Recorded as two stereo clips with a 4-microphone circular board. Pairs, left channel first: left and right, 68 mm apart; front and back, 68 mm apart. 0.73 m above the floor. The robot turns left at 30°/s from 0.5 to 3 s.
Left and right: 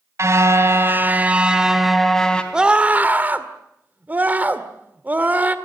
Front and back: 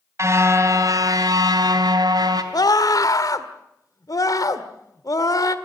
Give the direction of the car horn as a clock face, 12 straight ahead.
5 o'clock.